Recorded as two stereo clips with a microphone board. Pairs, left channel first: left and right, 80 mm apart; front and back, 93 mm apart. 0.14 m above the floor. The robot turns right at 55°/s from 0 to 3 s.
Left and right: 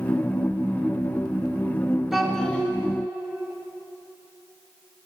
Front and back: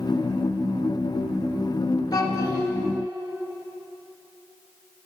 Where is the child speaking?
5° right, 1.1 m; by 2.7 s 30° left, 1.1 m.